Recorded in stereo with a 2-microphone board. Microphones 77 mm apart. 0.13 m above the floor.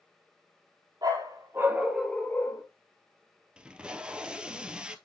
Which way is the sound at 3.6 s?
10° right (ahead or behind).